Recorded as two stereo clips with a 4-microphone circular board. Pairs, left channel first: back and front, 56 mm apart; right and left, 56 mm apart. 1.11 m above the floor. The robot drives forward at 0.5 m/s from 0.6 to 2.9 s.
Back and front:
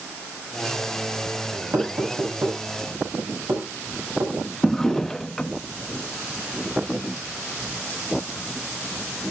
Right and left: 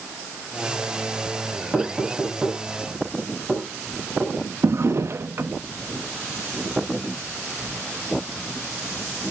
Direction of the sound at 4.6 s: 100° left.